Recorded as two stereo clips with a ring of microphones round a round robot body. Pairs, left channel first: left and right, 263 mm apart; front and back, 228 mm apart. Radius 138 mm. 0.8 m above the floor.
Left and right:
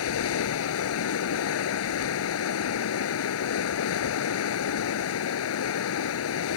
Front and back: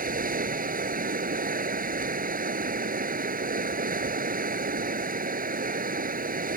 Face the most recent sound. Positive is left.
turn(degrees=125)